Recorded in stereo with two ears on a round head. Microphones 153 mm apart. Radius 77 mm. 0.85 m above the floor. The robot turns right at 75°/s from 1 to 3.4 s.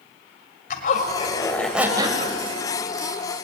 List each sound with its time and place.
0.7 s a zipper: 130° left, 2 m; by 2.4 s 130° right, 2 m